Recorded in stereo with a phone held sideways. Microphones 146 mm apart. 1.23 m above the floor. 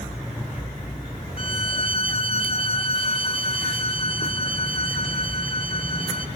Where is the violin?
65° right (ahead or behind), 0.6 m.